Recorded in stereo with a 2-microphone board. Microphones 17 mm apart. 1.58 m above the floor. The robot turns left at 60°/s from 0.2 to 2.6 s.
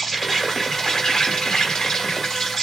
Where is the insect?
175° left, 1.7 m; by 2.6 s 30° left, 1.7 m.